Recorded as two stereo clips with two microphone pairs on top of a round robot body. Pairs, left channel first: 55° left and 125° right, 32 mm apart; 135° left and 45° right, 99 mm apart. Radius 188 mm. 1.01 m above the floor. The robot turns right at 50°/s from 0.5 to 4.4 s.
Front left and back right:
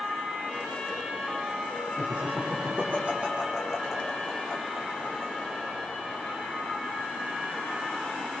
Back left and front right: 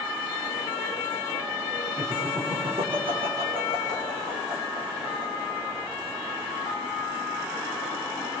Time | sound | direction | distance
2.0 | laughter | 135° right | 4.5 m